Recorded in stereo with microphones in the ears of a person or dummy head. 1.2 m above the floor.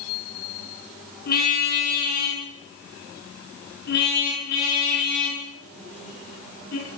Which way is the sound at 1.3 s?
60° left (ahead or behind).